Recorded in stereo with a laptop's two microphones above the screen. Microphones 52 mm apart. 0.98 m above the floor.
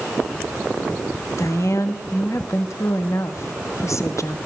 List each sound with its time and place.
1.4 s a woman speaking: 65° left (ahead or behind), 1.7 m